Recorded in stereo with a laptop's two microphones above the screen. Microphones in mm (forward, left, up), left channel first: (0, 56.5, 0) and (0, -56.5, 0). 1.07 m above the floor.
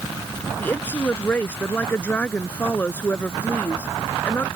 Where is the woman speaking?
15° left (ahead or behind).